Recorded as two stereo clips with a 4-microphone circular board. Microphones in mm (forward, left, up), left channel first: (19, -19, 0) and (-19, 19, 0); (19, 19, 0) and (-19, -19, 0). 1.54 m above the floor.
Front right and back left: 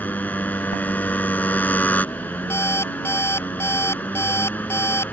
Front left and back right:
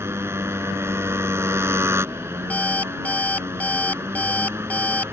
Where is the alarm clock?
15° right.